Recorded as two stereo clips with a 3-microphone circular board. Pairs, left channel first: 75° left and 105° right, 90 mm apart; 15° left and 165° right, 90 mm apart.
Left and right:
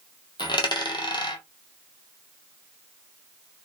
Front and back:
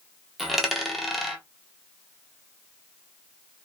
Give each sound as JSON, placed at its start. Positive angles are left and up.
{"t": 0.4, "sound": "a dropped coin", "azimuth_deg": 105, "distance_m": 0.7}